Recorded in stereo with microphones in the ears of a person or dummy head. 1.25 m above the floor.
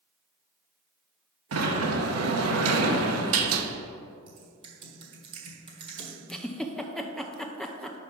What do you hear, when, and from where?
1.5 s a sliding door: 75° right (ahead or behind), 0.8 m
4.3 s typing on a keyboard: 25° right (ahead or behind), 1.3 m
6.3 s a giggle: 5° left (ahead or behind), 0.5 m